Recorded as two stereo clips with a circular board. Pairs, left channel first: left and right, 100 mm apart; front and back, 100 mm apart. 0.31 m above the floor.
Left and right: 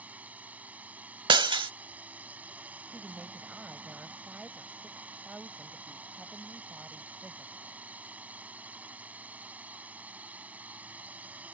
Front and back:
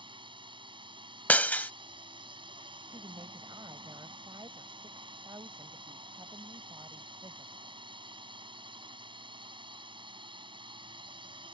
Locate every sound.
0.0 s a drone: 165° right
1.3 s breaking glass: 70° right
2.9 s a woman speaking: 165° right